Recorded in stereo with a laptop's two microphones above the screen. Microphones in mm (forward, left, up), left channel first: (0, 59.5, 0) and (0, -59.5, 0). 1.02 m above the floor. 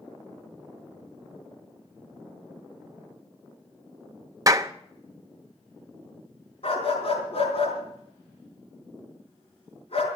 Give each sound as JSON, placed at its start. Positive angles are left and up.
{"t": 4.5, "sound": "a clap", "side_deg": -30, "distance_m": 0.8}
{"t": 6.6, "sound": "a dog barking", "side_deg": 55, "distance_m": 4.0}